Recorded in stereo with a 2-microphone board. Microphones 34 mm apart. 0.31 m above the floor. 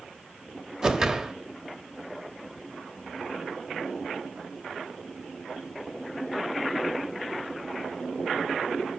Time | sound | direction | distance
0.8 | a whoosh | 25° right (ahead or behind) | 1.3 m